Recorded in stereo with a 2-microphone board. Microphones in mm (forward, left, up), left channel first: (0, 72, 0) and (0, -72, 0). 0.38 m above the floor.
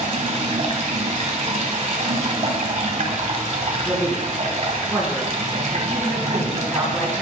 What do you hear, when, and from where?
0.0 s running water: 50° right (ahead or behind), 1.4 m
3.9 s a man speaking: centre (ahead or behind), 4 m